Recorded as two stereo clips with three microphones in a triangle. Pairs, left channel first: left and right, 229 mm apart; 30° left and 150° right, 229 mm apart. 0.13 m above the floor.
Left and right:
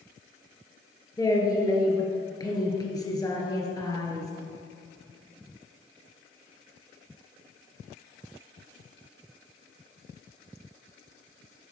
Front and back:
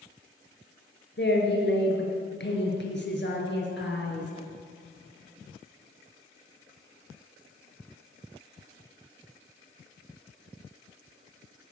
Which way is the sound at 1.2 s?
20° left.